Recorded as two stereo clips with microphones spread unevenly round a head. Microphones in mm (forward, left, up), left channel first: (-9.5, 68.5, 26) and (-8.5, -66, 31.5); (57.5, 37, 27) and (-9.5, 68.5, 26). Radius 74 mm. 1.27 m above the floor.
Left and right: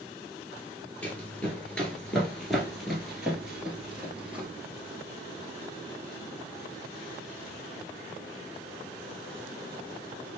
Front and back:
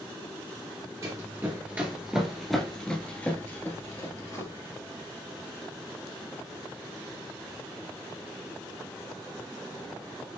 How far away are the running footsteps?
About 1.4 m.